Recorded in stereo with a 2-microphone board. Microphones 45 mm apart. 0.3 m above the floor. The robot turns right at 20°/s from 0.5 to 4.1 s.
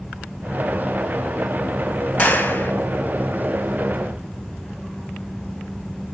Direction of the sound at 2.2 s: 40° left (ahead or behind).